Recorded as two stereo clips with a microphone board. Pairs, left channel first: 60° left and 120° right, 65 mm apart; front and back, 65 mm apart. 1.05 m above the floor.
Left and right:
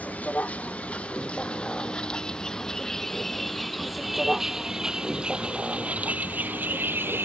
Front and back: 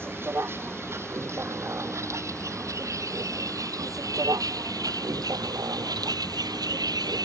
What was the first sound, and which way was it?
A vehicle, 125° left.